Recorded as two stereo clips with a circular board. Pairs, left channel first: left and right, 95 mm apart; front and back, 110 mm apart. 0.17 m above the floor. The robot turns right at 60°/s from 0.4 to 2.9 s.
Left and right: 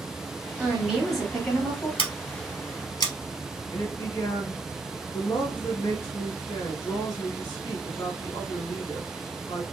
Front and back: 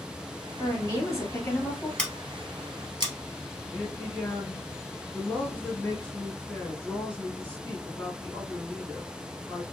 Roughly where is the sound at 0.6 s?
Ahead right.